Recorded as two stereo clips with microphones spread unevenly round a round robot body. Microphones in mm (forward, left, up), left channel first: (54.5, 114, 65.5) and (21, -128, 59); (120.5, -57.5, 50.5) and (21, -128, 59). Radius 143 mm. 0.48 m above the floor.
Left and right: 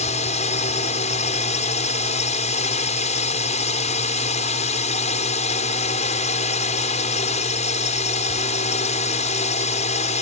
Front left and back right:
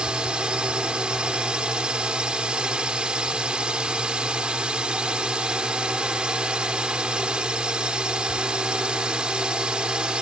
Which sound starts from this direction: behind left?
A drone, at 0.0 s.